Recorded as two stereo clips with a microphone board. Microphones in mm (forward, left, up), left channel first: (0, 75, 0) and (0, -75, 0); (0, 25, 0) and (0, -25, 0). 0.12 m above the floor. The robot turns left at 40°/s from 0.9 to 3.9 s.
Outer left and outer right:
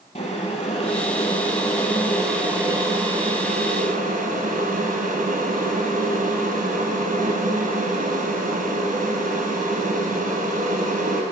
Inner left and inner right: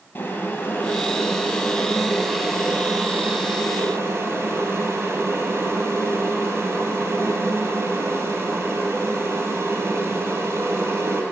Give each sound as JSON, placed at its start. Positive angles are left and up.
{"t": 0.1, "sound": "boiling", "azimuth_deg": 55, "distance_m": 2.5}